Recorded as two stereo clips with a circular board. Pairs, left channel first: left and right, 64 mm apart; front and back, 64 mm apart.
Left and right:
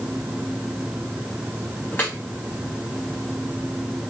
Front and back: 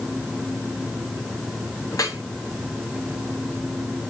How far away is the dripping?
About 3 m.